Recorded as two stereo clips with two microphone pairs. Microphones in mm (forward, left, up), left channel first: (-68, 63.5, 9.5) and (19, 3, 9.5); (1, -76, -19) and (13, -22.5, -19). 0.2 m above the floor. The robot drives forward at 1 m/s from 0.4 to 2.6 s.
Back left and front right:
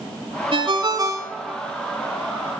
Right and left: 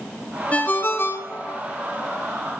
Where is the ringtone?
50° right, 1.2 m; by 1.6 s 120° right, 1.1 m.